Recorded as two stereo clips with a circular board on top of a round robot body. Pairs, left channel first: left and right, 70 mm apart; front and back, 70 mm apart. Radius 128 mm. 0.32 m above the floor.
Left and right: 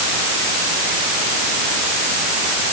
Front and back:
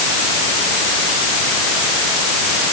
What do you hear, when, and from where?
Only background noise.